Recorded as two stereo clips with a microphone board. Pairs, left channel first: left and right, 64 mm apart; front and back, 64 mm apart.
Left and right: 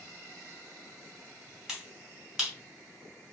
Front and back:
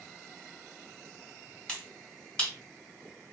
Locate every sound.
1.7 s a finger snap: 25° right, 1.4 m